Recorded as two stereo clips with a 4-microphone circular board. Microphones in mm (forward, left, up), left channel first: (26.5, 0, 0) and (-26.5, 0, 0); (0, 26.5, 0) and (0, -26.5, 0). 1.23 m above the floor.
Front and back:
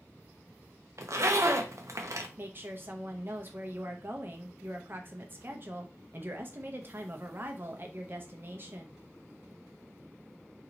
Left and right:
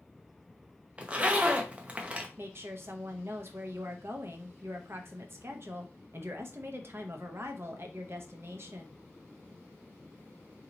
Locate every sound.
1.0 s a zipper: 155° right, 0.6 m
2.4 s a woman speaking: 130° right, 0.7 m